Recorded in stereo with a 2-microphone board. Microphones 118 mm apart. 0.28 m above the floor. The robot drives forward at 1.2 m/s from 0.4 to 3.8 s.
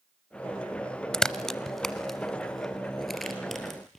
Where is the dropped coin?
No dropped coin in this recording.